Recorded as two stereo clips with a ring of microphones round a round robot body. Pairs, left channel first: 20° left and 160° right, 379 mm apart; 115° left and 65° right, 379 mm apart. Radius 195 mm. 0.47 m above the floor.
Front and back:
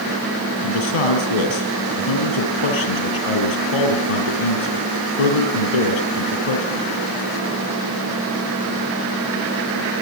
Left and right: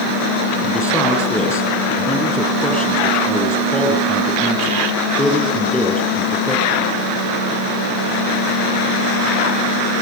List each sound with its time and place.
0.6 s a man speaking: 30° left, 6.5 m